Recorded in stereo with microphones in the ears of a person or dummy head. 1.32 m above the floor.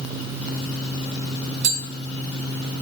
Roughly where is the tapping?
Right.